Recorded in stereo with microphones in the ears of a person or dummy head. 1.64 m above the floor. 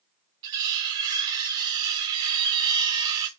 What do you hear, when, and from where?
0.4 s cutlery clinking: 20° right (ahead or behind), 0.8 m